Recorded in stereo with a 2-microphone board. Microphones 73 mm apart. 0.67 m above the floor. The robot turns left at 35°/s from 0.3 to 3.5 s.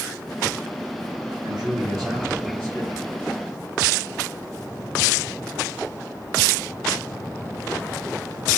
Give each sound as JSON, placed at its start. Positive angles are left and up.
{"t": 1.4, "sound": "a man speaking", "azimuth_deg": -95, "distance_m": 4.0}